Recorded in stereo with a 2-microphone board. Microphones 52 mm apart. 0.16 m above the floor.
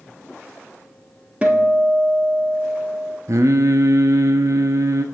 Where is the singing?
70° right (ahead or behind), 0.6 m.